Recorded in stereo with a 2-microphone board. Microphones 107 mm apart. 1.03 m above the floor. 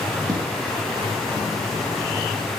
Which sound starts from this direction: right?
Footsteps, at 0.3 s.